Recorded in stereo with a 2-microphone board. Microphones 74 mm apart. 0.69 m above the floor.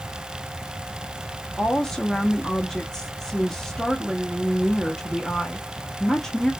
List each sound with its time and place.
1.6 s a woman speaking: 5° left (ahead or behind), 0.6 m